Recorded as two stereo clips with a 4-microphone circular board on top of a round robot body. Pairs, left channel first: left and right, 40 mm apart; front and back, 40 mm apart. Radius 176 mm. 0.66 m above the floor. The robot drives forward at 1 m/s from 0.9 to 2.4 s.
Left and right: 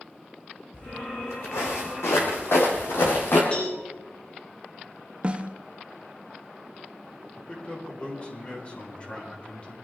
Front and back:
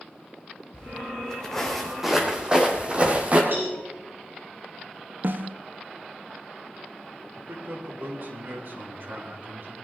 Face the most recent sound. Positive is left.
turn(degrees=150)